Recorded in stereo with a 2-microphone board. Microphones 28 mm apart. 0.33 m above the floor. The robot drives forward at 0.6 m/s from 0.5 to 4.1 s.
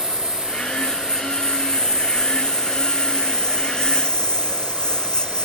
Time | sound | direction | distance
0.0 | a lawn mower | 25° left (ahead or behind) | ?